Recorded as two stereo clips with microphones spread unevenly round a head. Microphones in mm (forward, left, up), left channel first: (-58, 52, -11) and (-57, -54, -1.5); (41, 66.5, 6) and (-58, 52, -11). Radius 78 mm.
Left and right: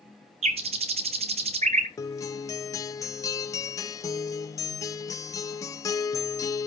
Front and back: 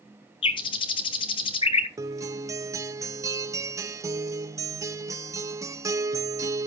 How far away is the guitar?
About 0.7 m.